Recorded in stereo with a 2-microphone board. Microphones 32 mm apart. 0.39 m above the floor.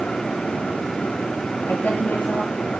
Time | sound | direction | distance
1.7 | a woman speaking | 55° left (ahead or behind) | 7.5 m